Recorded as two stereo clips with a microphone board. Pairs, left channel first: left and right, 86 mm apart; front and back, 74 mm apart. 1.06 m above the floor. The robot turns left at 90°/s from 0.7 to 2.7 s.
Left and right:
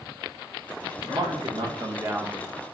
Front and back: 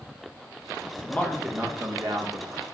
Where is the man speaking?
55° right, 0.8 m; by 2.6 s 155° left, 0.8 m.